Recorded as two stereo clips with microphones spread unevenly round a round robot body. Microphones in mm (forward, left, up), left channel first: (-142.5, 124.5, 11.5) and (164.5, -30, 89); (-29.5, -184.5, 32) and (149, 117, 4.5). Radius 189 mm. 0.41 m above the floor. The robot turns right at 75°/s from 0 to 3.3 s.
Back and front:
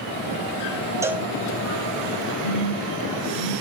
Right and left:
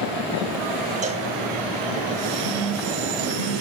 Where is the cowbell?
75° left, 0.6 m; by 1.3 s 95° left, 0.6 m.